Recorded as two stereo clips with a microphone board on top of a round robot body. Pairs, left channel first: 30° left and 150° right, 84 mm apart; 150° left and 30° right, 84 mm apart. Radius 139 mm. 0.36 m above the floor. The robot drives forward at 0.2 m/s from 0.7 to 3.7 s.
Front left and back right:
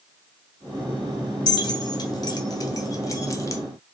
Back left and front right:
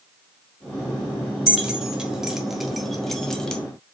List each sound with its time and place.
1.5 s keys jangling: 45° left, 1.1 m; by 3.6 s 75° left, 1.0 m